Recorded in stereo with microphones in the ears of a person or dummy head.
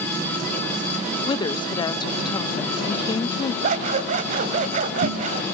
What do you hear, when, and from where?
1.3 s a woman speaking: 30° left (ahead or behind), 1.1 m
3.6 s scissors: 45° right (ahead or behind), 1.9 m